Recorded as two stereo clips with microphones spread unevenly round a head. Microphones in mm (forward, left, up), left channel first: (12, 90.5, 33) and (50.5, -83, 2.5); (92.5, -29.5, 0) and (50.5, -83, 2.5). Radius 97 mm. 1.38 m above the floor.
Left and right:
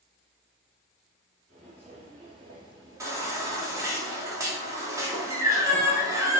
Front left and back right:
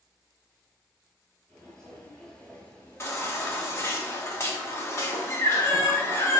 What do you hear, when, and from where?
1.5 s footsteps: 30° right, 1.9 m; by 4.0 s 40° left, 1.4 m
3.0 s a baby crying: straight ahead, 1.0 m